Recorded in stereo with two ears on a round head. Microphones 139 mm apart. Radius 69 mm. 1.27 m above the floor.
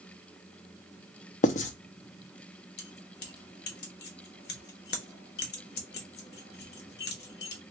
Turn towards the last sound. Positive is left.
turn(degrees=70)  # may be behind; listen again after turning